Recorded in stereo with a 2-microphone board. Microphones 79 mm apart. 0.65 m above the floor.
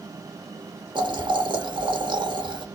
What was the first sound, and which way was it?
Boiling, 75° right (ahead or behind).